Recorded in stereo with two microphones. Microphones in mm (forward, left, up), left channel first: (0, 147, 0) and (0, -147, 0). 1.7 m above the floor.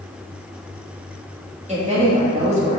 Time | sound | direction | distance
1.7 | a woman speaking | 25° right (ahead or behind) | 2.5 m